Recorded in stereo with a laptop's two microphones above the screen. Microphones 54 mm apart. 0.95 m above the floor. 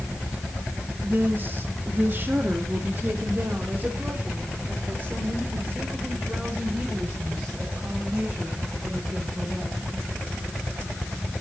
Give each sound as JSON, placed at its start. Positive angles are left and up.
{"t": 1.0, "sound": "a woman speaking", "side_deg": -40, "distance_m": 1.3}